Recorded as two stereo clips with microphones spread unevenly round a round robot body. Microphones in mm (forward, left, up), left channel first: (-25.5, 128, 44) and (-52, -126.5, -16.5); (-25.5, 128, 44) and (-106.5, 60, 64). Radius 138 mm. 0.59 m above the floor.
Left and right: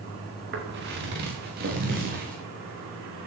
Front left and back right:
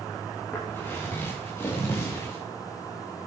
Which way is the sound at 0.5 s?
40° right.